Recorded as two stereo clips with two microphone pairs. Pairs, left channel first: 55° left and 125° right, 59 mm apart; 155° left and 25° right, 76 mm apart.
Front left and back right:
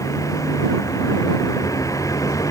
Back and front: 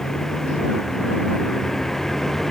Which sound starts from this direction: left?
A vehicle, at 0.0 s.